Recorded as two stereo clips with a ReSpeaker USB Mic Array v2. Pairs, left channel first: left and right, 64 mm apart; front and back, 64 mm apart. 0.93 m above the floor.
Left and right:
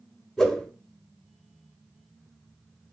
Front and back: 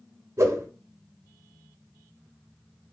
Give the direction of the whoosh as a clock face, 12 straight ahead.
6 o'clock.